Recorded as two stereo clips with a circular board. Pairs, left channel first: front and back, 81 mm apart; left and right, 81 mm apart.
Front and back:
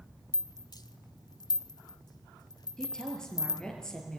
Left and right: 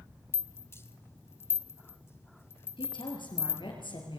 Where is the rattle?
30° left, 0.9 m.